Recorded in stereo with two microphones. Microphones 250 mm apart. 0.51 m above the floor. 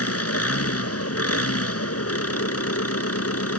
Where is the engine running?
70° left (ahead or behind).